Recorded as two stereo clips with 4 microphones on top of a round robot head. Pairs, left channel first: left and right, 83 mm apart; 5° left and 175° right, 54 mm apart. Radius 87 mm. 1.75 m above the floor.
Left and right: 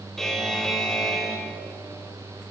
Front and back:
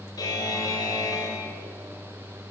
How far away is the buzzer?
About 3.5 m.